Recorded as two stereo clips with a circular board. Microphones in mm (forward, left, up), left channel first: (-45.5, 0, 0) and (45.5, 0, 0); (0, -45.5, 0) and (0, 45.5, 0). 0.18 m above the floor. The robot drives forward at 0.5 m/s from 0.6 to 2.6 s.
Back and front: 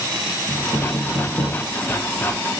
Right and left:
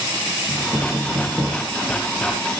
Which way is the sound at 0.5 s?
35° left.